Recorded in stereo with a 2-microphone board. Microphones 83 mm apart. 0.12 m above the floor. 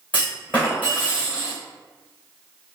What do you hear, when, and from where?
0.1 s a clunk: 15° left (ahead or behind), 1.6 m